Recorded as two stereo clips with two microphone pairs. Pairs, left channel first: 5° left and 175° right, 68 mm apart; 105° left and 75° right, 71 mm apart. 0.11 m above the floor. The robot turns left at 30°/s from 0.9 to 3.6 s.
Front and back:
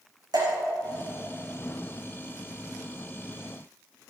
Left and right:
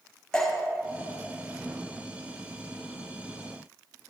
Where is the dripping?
170° right, 6 m.